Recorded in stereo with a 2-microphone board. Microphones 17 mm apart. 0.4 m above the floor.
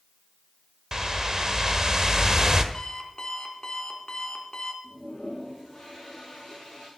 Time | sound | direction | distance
0.9 | a whoosh | 40° right (ahead or behind) | 1.3 m
2.7 | an alarm clock | 40° left (ahead or behind) | 2.5 m
4.8 | a toilet flushing | 50° left (ahead or behind) | 8 m